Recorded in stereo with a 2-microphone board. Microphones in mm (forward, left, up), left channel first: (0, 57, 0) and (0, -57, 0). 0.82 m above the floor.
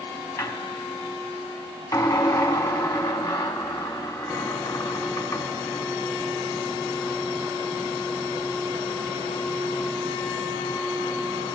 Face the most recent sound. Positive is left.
turn(degrees=35)  # may be behind; listen again after turning